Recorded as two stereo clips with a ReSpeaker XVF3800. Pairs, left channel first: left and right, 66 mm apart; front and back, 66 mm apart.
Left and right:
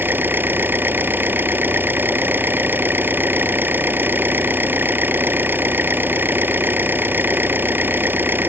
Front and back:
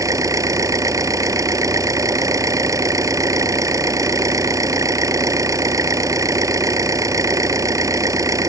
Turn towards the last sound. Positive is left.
turn(degrees=-150)